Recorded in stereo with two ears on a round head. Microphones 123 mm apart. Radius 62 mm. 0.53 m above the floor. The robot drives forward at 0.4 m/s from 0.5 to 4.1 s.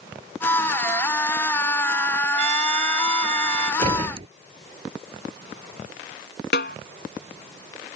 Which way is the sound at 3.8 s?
40° right (ahead or behind).